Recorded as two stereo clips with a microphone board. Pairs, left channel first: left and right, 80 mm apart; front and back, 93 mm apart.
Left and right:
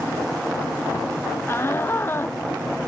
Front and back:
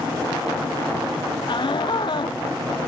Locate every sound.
1.5 s a shout: 30° left